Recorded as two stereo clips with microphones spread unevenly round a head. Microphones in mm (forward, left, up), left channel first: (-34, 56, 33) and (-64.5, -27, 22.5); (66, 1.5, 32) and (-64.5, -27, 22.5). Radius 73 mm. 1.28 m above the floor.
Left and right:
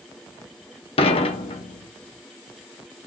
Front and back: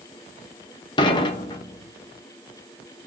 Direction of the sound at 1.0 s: 70° left.